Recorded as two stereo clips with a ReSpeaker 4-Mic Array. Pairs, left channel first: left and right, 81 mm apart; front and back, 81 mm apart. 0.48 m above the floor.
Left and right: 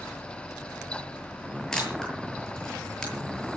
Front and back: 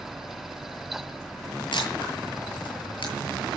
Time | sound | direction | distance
1.7 | a camera shutter | 10° left | 8.5 m